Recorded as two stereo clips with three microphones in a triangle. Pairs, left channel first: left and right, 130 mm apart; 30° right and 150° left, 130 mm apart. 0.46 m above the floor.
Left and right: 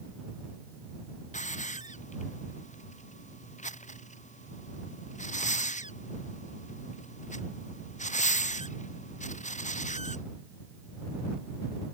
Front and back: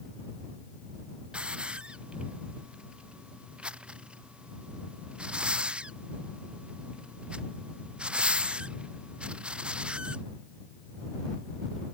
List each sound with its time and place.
1.3 s a hiss: 65° left